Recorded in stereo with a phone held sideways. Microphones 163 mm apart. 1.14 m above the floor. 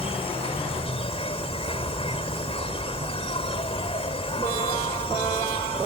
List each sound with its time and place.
0.0 s an insect: 35° left (ahead or behind)